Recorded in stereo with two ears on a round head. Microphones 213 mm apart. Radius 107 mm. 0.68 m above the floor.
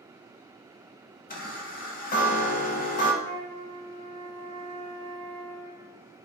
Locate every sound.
1.3 s a chime: 40° left (ahead or behind), 0.6 m
3.2 s a flute: 60° left (ahead or behind), 1.6 m